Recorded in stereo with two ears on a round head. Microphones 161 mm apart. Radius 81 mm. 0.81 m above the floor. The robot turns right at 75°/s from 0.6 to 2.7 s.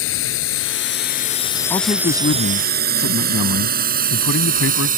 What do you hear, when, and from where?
0.0 s a drone: 85° left; by 5.0 s 50° right (ahead or behind)
1.7 s a man speaking: 20° left; by 4.9 s 95° left